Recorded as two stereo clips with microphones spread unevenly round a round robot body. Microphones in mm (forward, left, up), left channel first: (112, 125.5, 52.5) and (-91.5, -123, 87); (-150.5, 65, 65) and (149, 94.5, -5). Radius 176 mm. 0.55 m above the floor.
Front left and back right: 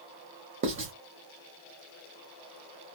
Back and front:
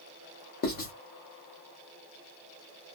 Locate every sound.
0.6 s writing: 115° right, 1.3 m